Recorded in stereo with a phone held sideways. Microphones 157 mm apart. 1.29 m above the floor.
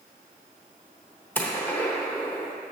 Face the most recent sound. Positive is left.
turn(degrees=15)  # may be behind; listen again after turning